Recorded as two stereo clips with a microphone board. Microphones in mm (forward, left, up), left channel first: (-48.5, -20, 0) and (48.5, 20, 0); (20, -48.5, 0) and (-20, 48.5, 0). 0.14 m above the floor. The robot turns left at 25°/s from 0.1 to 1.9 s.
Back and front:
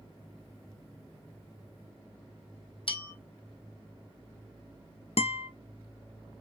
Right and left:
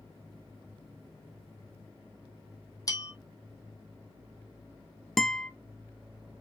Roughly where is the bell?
Behind right.